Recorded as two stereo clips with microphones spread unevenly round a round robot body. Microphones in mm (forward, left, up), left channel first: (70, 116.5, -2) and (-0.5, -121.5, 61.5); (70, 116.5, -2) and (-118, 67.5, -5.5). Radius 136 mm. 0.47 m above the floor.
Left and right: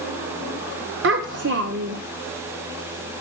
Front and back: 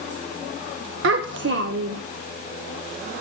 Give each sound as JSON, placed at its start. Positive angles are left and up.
{"t": 1.0, "sound": "a child speaking", "azimuth_deg": -155, "distance_m": 0.6}